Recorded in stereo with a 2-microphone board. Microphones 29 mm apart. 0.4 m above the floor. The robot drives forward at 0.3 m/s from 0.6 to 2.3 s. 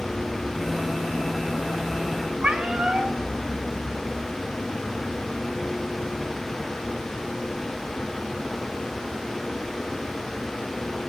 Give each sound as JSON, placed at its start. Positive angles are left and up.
{"t": 2.4, "sound": "a cat meowing", "side_deg": -40, "distance_m": 1.5}